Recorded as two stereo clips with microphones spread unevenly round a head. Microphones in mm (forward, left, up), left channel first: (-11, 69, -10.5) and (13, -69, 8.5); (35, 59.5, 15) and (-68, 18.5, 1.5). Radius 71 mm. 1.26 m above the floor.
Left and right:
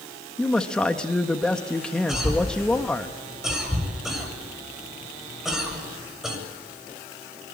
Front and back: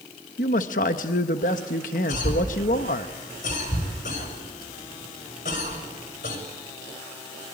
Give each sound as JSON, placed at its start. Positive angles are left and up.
{"t": 0.4, "sound": "a man speaking", "azimuth_deg": 15, "distance_m": 1.3}
{"t": 2.1, "sound": "a cough", "azimuth_deg": 5, "distance_m": 7.0}